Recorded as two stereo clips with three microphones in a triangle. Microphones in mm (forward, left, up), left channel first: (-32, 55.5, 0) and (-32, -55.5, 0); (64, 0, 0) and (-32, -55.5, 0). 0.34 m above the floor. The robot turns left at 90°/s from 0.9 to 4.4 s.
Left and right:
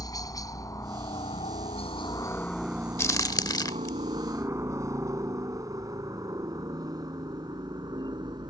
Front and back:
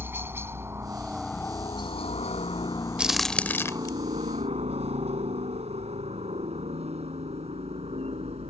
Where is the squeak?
I don't hear a squeak.